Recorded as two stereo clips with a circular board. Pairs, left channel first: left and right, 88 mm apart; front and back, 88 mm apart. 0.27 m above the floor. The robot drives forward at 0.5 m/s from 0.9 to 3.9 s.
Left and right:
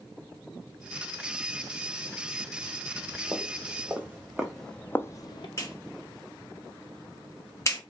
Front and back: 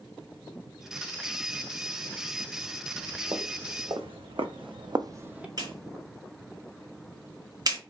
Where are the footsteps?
145° right, 1.3 m; by 5.5 s 100° left, 0.5 m.